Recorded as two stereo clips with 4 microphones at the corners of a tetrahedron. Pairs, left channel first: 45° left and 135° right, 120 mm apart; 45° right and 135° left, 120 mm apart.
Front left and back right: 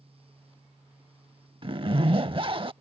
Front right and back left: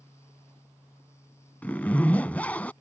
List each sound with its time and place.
1.6 s a zipper: 115° right